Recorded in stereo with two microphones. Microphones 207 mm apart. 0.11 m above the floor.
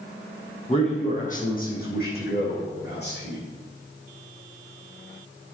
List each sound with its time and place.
0.7 s a man speaking: 30° left (ahead or behind), 3.5 m; by 3.4 s 55° left (ahead or behind), 6.5 m